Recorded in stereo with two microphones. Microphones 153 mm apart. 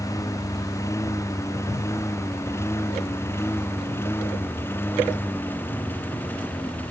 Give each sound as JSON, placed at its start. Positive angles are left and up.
{"t": 0.0, "sound": "a lawn mower", "side_deg": 20}